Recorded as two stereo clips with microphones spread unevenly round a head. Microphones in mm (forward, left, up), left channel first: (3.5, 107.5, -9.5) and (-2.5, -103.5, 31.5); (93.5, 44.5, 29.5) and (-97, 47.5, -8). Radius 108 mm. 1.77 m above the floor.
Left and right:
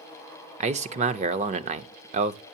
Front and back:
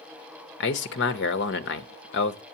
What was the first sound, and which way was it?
A man speaking, 35° right.